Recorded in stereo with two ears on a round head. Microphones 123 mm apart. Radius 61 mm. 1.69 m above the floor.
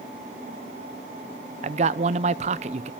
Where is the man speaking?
50° right (ahead or behind), 0.9 m.